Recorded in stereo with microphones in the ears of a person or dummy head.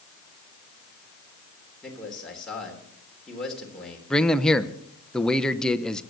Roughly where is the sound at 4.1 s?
Centre.